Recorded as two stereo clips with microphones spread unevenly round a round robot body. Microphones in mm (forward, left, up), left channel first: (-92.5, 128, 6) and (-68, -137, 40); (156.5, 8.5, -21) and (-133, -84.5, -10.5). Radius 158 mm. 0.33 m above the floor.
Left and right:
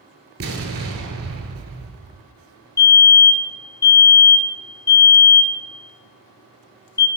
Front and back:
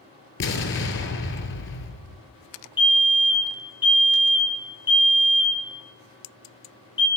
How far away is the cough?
No cough in this recording.